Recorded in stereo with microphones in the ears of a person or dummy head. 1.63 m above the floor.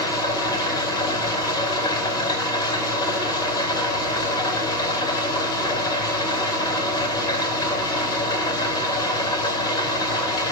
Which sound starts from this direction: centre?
An engine running, at 0.0 s.